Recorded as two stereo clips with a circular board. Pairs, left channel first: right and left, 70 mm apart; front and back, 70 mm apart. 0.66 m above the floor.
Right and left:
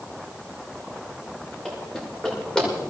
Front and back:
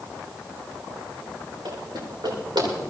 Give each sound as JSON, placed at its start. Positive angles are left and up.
{"t": 1.6, "sound": "running footsteps", "azimuth_deg": -165, "distance_m": 10.0}